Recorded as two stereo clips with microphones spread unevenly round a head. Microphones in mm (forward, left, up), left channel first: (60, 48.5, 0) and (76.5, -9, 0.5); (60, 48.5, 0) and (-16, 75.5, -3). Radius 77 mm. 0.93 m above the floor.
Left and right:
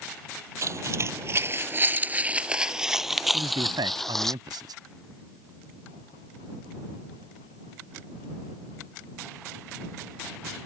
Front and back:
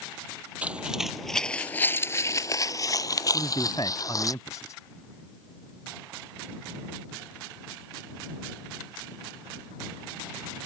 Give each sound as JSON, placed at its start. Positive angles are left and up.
{"t": 0.6, "sound": "footsteps", "azimuth_deg": -120}
{"t": 3.3, "sound": "a man speaking", "azimuth_deg": -90}